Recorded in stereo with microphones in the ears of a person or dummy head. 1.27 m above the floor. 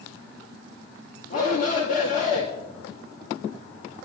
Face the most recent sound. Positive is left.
turn(degrees=45)  # may be behind; listen again after turning